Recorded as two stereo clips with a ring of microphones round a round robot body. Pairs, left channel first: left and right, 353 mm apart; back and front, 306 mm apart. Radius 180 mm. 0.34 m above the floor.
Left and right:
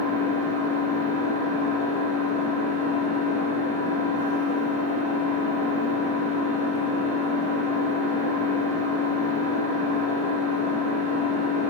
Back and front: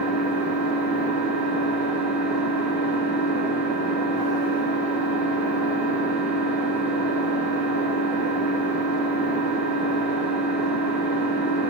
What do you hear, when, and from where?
0.0 s an engine running: 30° left, 1.6 m